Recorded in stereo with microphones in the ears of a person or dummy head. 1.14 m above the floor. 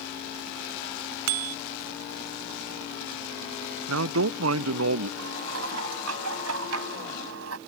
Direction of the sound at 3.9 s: 85° right.